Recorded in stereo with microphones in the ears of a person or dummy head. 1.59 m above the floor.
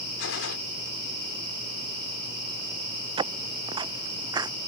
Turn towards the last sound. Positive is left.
turn(degrees=-20)  # may be behind; listen again after turning